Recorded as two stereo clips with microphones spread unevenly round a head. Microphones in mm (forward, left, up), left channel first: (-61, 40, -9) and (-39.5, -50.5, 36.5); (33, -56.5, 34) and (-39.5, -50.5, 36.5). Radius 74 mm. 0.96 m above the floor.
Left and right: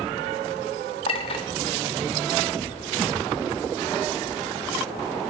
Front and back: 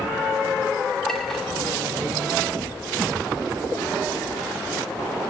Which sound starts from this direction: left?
A clink, at 1.1 s.